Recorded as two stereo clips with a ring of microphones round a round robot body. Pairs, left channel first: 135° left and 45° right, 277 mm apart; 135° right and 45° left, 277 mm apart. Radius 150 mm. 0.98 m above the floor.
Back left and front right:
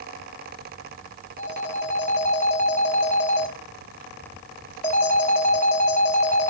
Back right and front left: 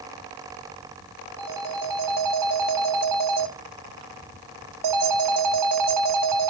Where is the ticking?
I don't hear ticking.